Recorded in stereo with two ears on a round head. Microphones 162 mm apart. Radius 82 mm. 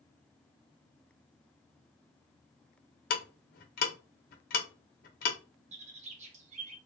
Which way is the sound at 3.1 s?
50° left (ahead or behind).